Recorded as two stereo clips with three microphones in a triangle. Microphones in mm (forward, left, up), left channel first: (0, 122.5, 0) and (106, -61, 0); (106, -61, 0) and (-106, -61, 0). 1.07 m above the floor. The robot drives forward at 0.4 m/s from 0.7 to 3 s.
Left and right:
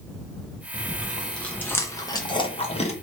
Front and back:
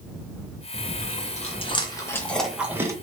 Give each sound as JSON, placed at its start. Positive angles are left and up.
{"t": 0.7, "sound": "chewing", "azimuth_deg": 25, "distance_m": 1.0}